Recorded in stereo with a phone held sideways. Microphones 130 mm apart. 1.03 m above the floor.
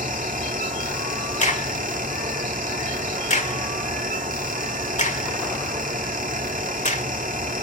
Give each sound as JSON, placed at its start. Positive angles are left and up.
{"t": 0.0, "sound": "a fan", "side_deg": -80, "distance_m": 1.2}
{"t": 1.4, "sound": "a crack", "side_deg": 60, "distance_m": 1.7}